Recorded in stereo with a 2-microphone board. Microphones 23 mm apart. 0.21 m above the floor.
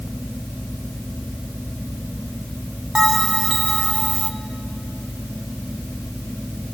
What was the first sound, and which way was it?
A bell, 40° right (ahead or behind).